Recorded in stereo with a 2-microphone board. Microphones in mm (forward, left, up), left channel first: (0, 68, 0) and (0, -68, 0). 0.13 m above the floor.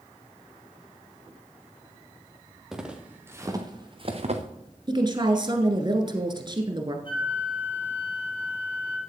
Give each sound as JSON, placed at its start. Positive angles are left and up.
{"t": 2.7, "sound": "footsteps", "side_deg": -5, "distance_m": 2.5}
{"t": 4.9, "sound": "a woman speaking", "side_deg": -35, "distance_m": 1.7}
{"t": 7.0, "sound": "a flute", "side_deg": 40, "distance_m": 3.0}